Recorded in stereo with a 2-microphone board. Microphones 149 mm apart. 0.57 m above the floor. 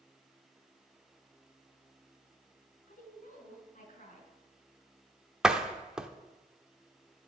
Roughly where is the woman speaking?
Left.